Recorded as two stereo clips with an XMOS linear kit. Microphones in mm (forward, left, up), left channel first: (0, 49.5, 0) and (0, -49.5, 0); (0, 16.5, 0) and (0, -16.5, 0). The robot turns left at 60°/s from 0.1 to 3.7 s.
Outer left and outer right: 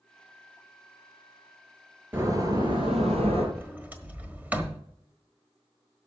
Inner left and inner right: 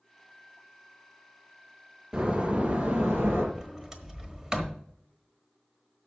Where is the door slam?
20° right, 3.5 m; by 3.5 s 100° right, 3.5 m.